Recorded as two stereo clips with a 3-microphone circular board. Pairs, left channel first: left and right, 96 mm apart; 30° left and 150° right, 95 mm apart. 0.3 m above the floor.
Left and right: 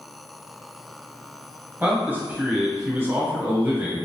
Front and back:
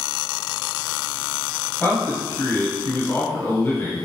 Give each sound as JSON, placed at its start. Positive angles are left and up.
{"t": 1.8, "sound": "a man speaking", "azimuth_deg": -25, "distance_m": 1.6}